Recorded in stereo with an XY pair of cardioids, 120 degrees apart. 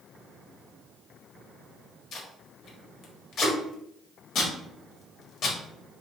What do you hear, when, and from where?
2.1 s tape being pulled: 55° left, 1.2 m